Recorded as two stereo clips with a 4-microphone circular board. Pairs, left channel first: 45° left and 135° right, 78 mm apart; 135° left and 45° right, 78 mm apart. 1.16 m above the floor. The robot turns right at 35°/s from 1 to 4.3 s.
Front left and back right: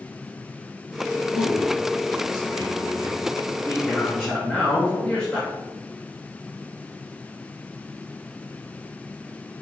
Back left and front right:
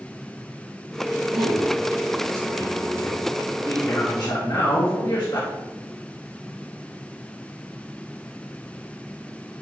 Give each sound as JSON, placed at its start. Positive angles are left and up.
{"t": 1.3, "sound": "a man speaking", "azimuth_deg": 10, "distance_m": 2.5}